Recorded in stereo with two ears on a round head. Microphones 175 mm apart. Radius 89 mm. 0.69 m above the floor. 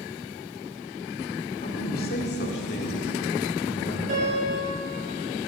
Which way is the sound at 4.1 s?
40° right (ahead or behind).